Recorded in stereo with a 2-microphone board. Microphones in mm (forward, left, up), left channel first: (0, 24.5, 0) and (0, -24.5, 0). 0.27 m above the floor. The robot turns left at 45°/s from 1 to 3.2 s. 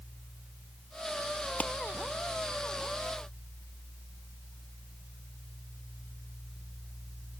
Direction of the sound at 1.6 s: 35° left (ahead or behind).